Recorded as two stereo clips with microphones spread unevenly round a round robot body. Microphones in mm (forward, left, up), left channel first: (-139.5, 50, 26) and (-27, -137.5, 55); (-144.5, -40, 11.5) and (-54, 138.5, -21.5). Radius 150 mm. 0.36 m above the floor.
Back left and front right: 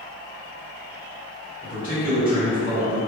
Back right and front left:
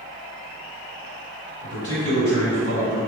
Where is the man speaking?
85° right, 1.7 m.